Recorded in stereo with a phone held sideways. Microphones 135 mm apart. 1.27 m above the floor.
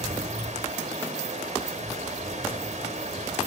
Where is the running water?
60° right (ahead or behind), 1.3 m.